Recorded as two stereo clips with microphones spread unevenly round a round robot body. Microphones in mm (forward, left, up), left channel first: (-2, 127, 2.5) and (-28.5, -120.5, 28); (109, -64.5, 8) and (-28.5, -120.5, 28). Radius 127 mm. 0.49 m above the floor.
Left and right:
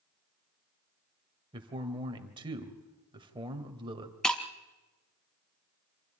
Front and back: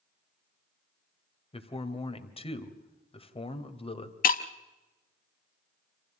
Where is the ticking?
I don't hear ticking.